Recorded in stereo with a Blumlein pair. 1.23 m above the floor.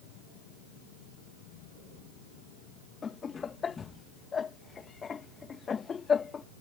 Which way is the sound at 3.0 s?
20° left.